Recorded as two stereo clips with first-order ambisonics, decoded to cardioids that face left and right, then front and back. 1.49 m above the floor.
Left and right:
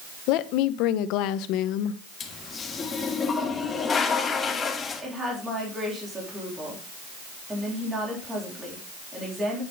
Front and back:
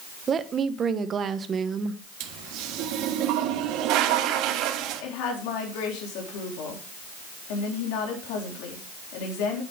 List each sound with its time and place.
0.3 s a woman speaking: 115° left, 0.9 m
2.2 s a toilet flushing: 160° left, 1.4 m
5.0 s a woman speaking: 10° right, 3.5 m